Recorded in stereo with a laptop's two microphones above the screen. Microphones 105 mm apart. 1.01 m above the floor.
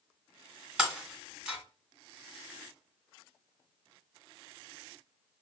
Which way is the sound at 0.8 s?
10° right (ahead or behind).